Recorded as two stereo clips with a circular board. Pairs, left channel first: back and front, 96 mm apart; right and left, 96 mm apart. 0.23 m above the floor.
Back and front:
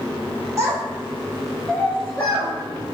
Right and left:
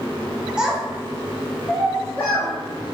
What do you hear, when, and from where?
0.6 s a child speaking: 15° left, 0.7 m; by 2.5 s 145° right, 1.0 m